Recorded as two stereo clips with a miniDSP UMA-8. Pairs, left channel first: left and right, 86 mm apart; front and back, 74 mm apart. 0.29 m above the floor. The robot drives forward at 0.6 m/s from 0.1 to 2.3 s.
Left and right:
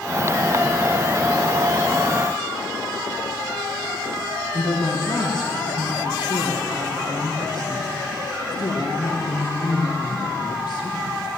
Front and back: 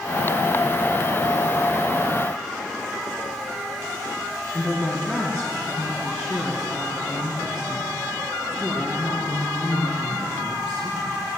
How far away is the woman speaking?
About 3 m.